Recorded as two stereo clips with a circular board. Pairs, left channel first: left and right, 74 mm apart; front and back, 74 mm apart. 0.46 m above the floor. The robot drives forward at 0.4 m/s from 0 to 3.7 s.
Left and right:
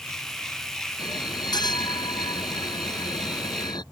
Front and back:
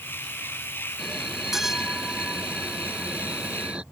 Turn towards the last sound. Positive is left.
turn(degrees=105)